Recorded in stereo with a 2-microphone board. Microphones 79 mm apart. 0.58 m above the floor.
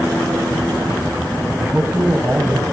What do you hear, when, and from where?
1.6 s a man speaking: 15° right (ahead or behind), 5 m